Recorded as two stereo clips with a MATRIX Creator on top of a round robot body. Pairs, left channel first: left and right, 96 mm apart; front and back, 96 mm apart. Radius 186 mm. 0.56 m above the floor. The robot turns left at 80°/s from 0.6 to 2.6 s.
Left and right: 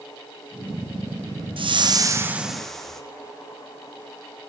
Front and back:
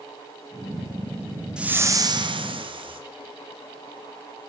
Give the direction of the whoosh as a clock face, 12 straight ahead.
3 o'clock.